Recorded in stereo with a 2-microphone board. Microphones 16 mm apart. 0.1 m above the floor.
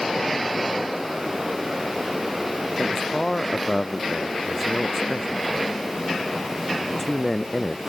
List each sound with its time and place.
2.8 s a man speaking: 5° left (ahead or behind)